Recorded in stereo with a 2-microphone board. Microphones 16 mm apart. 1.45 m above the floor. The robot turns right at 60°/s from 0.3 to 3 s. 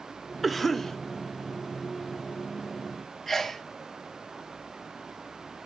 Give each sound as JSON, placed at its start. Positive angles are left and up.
{"t": 0.4, "sound": "a cough", "azimuth_deg": -5, "distance_m": 0.9}
{"t": 3.3, "sound": "a sneeze", "side_deg": 20, "distance_m": 1.4}